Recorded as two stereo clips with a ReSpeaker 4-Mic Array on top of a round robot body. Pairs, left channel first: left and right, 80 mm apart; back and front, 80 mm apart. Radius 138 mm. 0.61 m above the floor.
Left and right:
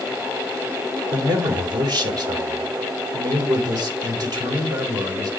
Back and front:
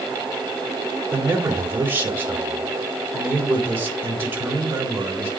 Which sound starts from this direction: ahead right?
A man speaking, at 1.1 s.